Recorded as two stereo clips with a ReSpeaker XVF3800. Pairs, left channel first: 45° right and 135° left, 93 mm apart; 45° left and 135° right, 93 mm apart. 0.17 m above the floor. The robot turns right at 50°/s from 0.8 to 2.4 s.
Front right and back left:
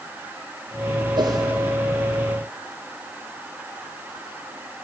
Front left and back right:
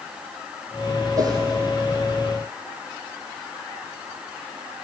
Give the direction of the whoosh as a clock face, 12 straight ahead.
6 o'clock.